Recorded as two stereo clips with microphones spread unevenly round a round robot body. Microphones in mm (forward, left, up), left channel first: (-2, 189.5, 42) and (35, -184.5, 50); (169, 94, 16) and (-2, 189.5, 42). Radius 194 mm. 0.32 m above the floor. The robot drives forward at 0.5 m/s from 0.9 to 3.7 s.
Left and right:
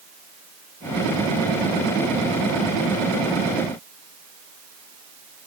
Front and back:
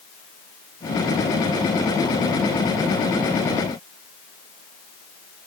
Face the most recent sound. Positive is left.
No sound to turn to.